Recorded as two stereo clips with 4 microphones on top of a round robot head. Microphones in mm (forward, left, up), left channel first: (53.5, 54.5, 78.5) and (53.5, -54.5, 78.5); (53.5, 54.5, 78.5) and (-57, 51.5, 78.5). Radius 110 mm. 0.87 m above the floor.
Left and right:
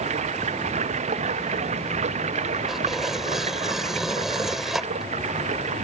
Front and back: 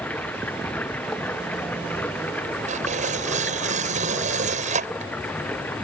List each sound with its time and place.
0.0 s running water: 80° right
2.7 s tearing paper: 175° right